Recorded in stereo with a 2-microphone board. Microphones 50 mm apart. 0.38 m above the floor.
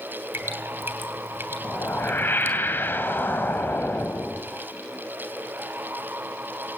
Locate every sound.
0.3 s dripping: 50° right (ahead or behind), 2.5 m
1.6 s a whoosh: 45° left (ahead or behind), 2.5 m